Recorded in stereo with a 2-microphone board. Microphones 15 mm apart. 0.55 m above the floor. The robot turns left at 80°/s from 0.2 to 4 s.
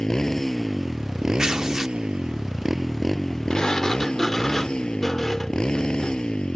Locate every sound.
0.0 s a motorcycle: 45° left; by 6.6 s 100° left
1.4 s tearing paper: 95° right; by 2.0 s 140° right
3.5 s a sliding door: 70° left; by 6.4 s 30° left